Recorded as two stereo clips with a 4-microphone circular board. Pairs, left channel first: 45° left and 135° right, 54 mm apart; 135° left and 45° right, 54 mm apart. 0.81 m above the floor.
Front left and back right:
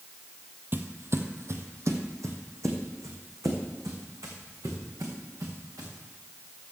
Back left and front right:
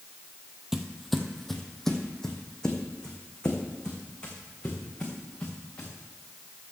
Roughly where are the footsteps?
Behind right.